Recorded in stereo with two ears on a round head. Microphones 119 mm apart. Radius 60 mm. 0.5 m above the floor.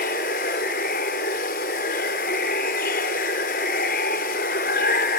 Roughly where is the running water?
Left.